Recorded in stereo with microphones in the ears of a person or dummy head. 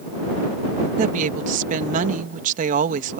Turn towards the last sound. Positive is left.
turn(degrees=-50)  # may be behind; listen again after turning